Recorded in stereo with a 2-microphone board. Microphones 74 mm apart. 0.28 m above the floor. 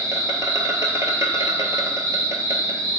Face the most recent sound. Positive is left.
turn(degrees=-45)  # may be behind; listen again after turning